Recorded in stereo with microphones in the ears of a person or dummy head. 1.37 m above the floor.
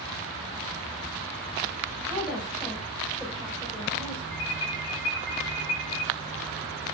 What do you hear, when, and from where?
2.1 s a woman speaking: 5° right (ahead or behind), 5.5 m; by 4.2 s centre (ahead or behind), 4.5 m
4.3 s an alarm: 25° left (ahead or behind), 8.5 m